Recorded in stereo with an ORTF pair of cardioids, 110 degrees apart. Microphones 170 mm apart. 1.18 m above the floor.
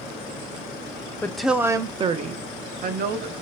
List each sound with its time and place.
1.2 s a woman speaking: 10° left, 0.5 m; by 3.3 s 65° right, 1.1 m